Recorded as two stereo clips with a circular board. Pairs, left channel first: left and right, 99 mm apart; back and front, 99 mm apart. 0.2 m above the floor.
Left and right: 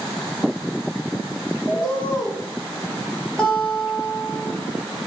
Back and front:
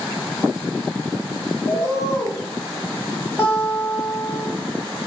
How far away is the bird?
About 1.3 m.